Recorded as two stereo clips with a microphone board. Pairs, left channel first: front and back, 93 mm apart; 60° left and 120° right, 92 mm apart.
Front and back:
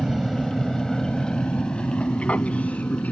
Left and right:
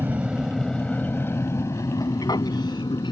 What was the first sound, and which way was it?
An aircraft, 105° right.